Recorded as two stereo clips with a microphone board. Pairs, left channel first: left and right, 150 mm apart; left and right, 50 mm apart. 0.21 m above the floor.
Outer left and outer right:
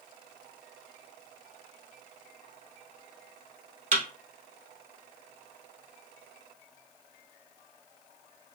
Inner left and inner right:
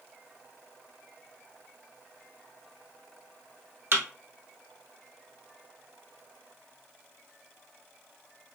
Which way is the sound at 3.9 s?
55° right (ahead or behind).